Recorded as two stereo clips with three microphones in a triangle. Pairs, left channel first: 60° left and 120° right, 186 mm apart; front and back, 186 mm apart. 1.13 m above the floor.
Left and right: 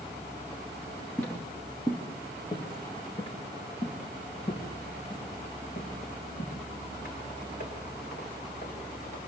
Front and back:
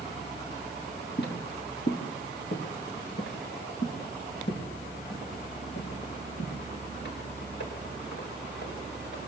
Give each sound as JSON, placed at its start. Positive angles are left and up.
{"t": 1.2, "sound": "footsteps", "azimuth_deg": -20, "distance_m": 4.5}